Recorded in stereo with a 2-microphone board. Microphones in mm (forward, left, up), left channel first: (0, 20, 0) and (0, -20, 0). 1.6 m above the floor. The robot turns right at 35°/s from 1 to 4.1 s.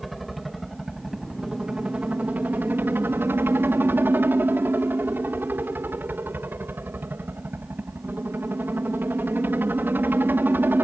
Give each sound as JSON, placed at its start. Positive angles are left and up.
{"t": 0.0, "sound": "a helicopter", "azimuth_deg": -175}